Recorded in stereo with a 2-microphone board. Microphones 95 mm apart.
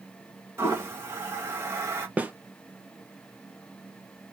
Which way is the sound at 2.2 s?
20° right (ahead or behind).